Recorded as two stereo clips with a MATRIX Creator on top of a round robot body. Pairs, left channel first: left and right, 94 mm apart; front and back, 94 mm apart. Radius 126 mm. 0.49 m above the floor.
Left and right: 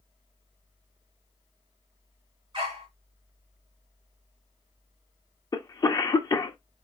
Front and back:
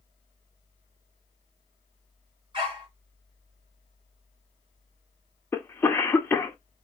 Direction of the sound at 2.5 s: 135° right.